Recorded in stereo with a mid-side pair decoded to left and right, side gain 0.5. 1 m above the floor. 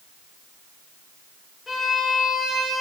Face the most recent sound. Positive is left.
turn(degrees=35)